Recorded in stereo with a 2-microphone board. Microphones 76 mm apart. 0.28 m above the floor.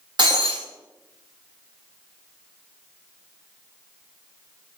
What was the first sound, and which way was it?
Breaking glass, 85° right.